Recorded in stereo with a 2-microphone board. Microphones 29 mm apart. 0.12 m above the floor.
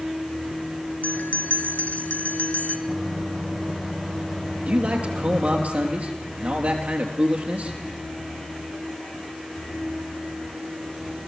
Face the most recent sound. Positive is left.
turn(degrees=-55)  # may be behind; listen again after turning